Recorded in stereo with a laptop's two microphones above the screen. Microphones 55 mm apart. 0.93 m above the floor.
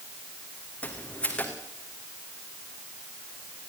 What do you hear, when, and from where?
0.8 s footsteps: 20° left (ahead or behind), 3 m